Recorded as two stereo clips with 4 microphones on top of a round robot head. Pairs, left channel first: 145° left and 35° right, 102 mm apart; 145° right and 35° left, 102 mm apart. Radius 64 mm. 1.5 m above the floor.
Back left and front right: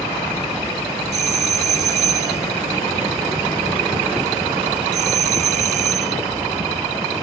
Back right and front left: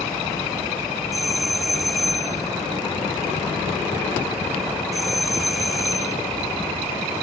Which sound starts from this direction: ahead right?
A doorbell, at 1.1 s.